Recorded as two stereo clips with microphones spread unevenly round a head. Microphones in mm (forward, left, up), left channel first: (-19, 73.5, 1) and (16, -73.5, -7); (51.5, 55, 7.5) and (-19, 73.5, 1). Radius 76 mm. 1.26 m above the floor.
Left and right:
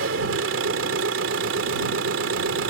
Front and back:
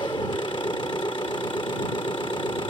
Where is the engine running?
75° right.